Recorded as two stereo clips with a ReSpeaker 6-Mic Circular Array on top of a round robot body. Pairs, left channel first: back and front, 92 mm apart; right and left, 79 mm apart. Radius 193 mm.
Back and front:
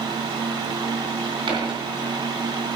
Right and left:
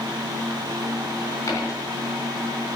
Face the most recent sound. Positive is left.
turn(degrees=-35)